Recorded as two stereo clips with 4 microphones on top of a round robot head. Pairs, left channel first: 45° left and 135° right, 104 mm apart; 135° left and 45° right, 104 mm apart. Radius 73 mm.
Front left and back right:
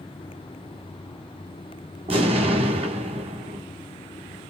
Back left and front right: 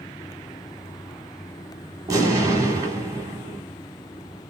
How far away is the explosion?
About 1.7 m.